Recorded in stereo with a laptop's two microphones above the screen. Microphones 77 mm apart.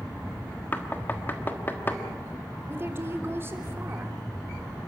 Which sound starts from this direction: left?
Knocking, at 0.7 s.